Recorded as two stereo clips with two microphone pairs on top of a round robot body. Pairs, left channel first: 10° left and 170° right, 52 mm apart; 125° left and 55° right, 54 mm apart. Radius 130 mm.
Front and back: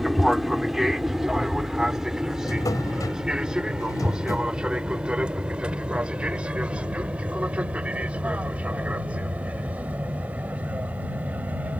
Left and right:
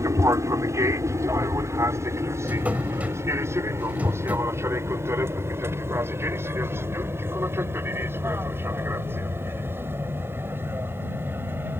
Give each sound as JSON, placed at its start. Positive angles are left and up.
{"t": 0.0, "sound": "an aircraft", "azimuth_deg": -85}
{"t": 2.4, "sound": "a drawer", "azimuth_deg": 10}